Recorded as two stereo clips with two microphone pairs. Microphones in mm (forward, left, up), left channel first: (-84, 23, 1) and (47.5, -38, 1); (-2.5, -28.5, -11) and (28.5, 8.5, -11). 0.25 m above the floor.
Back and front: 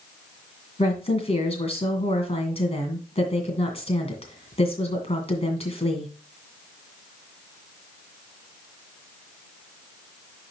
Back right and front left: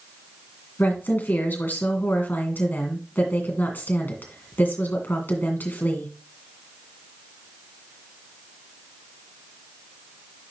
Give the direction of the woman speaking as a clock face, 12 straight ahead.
6 o'clock.